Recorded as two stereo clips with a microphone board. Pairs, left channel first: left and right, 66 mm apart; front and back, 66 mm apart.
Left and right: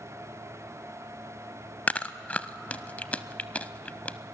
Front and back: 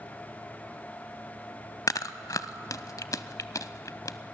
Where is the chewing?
20° left, 0.5 m.